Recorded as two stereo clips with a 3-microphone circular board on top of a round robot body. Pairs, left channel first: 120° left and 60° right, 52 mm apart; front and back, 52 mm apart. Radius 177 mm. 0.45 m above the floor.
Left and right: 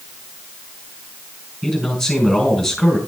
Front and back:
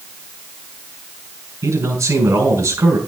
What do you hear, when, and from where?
1.6 s a man speaking: 150° right, 3 m